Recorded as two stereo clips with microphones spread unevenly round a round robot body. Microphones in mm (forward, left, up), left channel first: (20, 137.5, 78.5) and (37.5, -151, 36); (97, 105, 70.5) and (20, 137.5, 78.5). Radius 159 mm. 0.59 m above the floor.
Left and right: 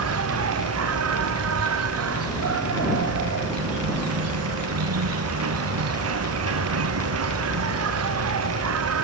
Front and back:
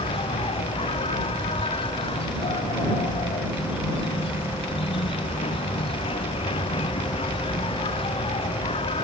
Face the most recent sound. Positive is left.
turn(degrees=-45)